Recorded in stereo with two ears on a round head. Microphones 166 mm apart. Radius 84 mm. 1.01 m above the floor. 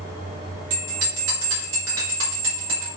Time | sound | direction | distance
0.7 | a bell | 80° right | 4 m